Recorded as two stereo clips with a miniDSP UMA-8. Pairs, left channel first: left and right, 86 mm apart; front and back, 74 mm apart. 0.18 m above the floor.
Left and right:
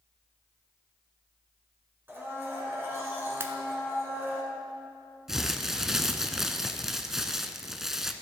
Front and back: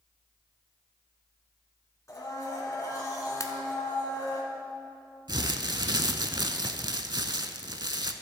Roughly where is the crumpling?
Behind.